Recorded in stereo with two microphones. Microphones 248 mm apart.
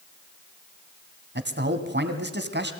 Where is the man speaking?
45° right (ahead or behind), 1.9 m.